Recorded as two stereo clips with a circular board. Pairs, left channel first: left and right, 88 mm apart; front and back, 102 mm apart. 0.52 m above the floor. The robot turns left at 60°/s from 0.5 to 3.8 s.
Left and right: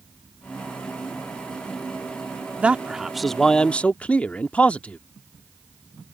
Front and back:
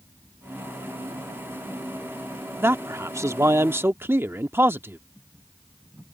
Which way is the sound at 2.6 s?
145° right.